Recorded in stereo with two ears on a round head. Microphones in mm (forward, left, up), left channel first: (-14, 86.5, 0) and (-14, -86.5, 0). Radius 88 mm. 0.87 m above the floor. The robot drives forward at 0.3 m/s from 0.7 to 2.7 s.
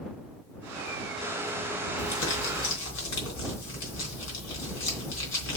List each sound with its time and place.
2.0 s crumpling: 65° left (ahead or behind), 3.5 m; by 5.6 s 70° left (ahead or behind), 3.5 m